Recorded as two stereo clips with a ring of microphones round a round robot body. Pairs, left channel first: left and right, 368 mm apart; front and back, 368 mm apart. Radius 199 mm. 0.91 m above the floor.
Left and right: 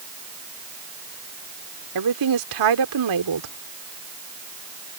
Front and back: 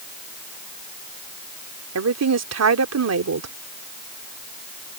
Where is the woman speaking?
130° right.